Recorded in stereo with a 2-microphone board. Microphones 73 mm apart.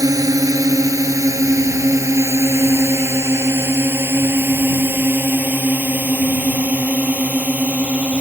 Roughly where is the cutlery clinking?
No cutlery clinking in this recording.